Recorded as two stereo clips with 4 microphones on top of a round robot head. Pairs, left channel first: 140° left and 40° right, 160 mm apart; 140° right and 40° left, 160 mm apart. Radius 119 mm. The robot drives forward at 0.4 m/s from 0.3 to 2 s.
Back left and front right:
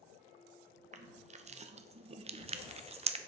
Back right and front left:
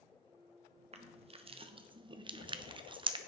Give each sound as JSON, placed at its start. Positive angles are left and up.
{"t": 0.9, "sound": "crushing", "azimuth_deg": -5, "distance_m": 1.3}